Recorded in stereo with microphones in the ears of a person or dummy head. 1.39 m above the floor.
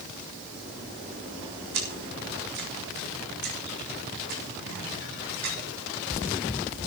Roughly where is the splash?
Right.